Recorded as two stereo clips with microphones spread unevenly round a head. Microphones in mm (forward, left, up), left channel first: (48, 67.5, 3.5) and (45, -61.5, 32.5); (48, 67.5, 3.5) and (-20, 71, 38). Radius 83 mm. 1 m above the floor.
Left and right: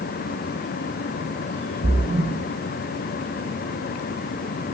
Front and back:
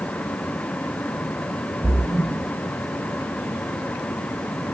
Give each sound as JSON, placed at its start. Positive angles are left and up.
{"t": 1.8, "sound": "a splash", "azimuth_deg": -105, "distance_m": 6.0}